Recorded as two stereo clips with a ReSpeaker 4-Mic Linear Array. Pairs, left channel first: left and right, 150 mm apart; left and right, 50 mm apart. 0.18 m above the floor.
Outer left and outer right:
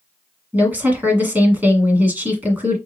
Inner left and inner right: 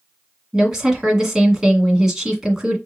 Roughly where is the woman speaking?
Centre.